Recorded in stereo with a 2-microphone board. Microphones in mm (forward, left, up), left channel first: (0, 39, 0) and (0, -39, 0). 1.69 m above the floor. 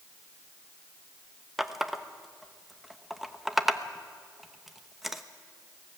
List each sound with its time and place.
1.6 s a running tap: centre (ahead or behind), 1.0 m